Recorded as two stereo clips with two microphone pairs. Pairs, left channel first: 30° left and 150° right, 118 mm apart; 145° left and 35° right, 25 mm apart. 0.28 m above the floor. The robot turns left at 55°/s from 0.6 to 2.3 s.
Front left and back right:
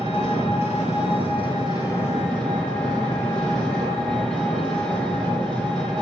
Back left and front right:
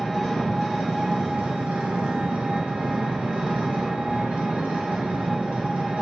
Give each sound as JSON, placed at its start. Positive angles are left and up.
{"t": 0.0, "sound": "an engine running", "azimuth_deg": 45, "distance_m": 4.0}